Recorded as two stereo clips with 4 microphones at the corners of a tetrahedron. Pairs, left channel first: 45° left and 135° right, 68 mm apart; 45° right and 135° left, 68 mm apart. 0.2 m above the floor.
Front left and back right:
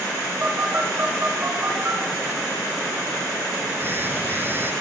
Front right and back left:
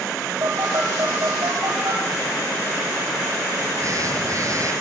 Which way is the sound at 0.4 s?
170° left.